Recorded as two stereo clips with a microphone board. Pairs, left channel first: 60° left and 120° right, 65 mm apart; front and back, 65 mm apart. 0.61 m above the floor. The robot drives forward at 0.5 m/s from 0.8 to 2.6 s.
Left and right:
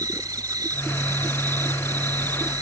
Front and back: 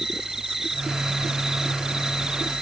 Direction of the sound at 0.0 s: 95° right.